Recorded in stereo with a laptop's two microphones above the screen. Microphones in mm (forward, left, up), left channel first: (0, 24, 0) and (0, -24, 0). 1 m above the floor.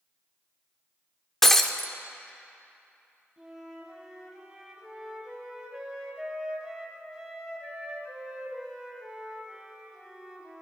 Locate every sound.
1.4 s breaking glass: 5° left (ahead or behind), 1.0 m
3.4 s a flute: 10° right (ahead or behind), 3 m